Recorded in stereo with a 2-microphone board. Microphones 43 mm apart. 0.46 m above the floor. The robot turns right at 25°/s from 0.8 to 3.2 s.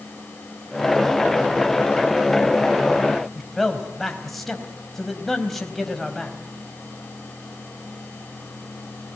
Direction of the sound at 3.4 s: 5° left (ahead or behind).